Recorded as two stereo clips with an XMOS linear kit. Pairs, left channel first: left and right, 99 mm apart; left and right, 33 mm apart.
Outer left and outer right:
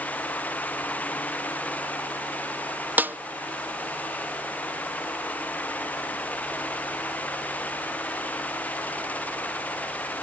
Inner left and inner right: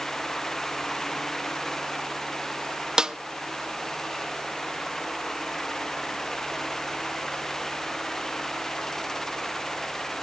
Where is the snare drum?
20° right (ahead or behind), 0.5 m.